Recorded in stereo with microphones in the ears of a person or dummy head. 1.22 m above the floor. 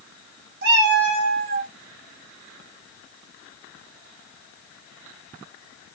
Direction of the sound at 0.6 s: 60° right (ahead or behind).